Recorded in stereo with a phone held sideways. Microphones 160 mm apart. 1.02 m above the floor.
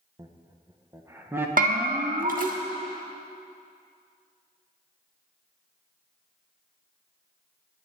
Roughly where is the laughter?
Right.